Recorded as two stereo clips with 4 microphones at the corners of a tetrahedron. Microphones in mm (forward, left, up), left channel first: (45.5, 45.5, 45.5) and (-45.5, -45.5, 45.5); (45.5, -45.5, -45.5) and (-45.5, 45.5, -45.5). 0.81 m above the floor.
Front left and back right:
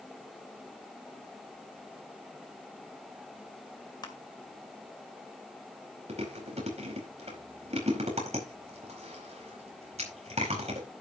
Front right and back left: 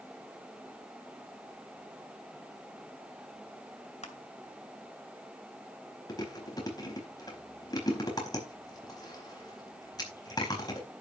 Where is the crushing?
15° right, 2 m.